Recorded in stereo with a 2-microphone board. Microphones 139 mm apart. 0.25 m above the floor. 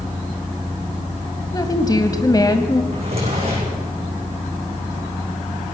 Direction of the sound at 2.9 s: 45° right (ahead or behind).